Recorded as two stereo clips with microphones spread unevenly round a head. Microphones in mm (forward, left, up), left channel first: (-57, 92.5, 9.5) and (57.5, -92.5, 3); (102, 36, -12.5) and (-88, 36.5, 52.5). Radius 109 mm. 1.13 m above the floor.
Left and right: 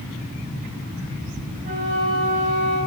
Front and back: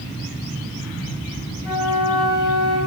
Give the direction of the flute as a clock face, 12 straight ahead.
9 o'clock.